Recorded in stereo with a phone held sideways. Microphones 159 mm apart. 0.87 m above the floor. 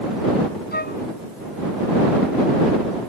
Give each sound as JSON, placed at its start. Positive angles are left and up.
{"t": 0.7, "sound": "a flute", "side_deg": 85}